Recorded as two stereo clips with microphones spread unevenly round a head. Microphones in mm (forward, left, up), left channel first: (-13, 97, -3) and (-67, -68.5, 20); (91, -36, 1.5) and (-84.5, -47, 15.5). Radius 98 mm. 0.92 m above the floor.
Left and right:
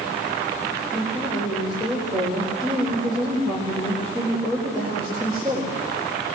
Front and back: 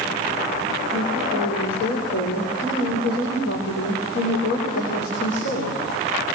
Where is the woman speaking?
15° right, 4 m.